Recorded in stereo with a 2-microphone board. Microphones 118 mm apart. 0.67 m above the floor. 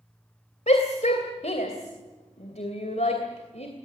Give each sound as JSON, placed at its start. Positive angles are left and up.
{"t": 0.7, "sound": "a shout", "side_deg": 70, "distance_m": 2.5}